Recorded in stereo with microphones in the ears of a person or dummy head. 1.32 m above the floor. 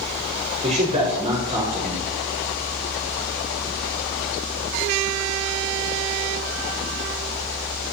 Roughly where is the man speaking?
Right.